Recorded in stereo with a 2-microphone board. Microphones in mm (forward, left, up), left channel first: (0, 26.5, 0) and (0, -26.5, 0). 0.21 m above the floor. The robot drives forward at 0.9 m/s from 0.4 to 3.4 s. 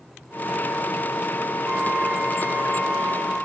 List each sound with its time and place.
1.7 s a flute: 25° right (ahead or behind), 1.5 m; by 3.5 s 15° right (ahead or behind), 2.5 m